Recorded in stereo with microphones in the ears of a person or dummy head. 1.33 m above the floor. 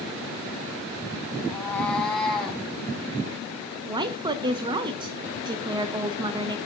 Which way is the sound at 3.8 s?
25° right (ahead or behind).